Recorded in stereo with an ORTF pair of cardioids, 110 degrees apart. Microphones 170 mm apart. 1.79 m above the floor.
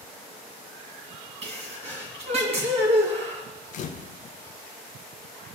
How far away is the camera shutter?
About 0.7 m.